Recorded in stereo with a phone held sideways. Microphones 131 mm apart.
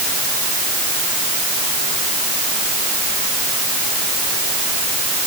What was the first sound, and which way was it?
Only background noise.